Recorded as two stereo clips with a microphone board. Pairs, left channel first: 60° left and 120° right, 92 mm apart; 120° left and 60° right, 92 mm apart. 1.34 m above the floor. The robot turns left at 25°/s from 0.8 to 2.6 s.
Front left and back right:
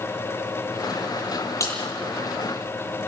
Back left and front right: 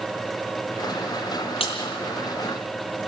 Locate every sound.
1.6 s a crack: 115° left, 9 m; by 3.1 s 90° left, 9 m